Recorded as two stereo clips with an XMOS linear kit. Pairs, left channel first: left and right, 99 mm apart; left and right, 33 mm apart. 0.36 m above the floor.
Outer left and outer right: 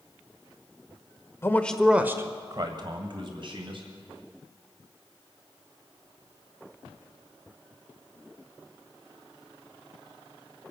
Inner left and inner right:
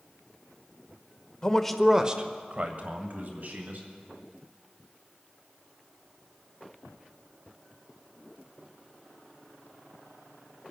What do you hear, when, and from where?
1.4 s a man speaking: 25° left (ahead or behind), 1.0 m; by 3.9 s 60° right (ahead or behind), 3 m